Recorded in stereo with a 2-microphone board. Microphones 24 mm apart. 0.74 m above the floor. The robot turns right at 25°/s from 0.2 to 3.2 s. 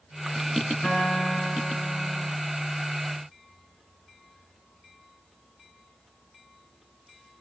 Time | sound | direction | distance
0.8 | a guitar | 75° left | 7.5 m